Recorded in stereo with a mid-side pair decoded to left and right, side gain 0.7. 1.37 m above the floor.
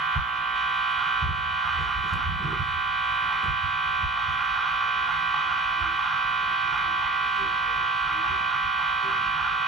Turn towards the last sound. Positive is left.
turn(degrees=-20)